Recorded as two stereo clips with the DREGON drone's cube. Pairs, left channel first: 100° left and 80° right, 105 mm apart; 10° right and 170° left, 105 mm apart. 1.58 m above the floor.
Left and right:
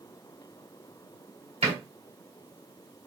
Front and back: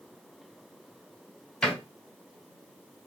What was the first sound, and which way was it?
A door slam, 95° right.